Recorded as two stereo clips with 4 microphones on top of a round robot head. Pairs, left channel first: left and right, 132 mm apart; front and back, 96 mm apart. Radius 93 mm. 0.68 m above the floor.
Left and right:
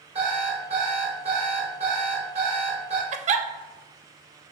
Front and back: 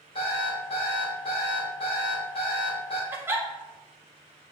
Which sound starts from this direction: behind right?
A giggle, at 3.1 s.